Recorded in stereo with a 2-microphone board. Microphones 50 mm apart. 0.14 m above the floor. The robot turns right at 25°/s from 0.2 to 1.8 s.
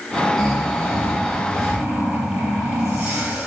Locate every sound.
0.4 s snoring: 175° left, 3.5 m; by 3.5 s 145° right, 3.5 m